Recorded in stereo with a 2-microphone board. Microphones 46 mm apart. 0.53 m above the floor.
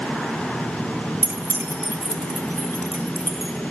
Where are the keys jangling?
50° right (ahead or behind), 0.9 m; by 3.5 s 80° right, 2 m.